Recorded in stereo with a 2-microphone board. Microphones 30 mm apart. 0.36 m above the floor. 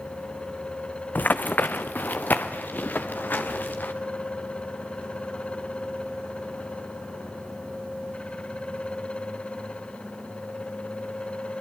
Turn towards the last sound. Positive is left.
turn(degrees=80)